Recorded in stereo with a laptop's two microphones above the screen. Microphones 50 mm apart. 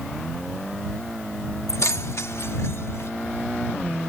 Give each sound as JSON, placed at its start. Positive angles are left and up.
{"t": 1.7, "sound": "keys jangling", "side_deg": 80}